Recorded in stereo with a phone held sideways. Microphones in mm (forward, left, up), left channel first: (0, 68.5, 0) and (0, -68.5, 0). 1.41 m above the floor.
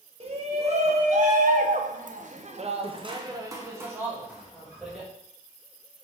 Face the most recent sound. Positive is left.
turn(degrees=-5)  # may be behind; listen again after turning